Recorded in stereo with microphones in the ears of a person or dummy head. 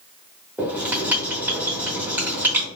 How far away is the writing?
About 1.1 m.